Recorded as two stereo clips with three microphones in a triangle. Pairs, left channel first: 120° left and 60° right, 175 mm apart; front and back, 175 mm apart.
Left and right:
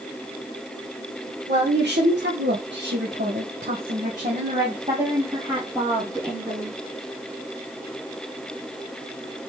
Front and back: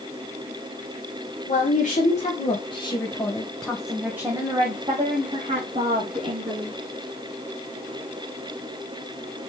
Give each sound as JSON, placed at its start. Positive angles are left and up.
{"t": 1.5, "sound": "a woman speaking", "azimuth_deg": -35, "distance_m": 1.9}